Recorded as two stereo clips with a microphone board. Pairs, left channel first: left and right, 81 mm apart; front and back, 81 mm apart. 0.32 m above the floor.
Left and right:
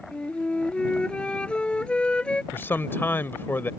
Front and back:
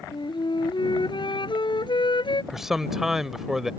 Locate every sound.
0.1 s a flute: 10° left
2.5 s a man speaking: 100° left